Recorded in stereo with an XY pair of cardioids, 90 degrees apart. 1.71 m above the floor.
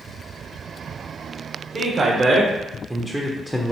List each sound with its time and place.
1.7 s a man speaking: 50° right, 1.2 m; by 3.7 s 20° left, 0.7 m